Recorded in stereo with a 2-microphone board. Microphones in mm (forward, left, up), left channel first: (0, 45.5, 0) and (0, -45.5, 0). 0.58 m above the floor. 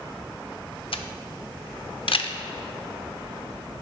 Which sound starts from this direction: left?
A camera shutter, at 0.9 s.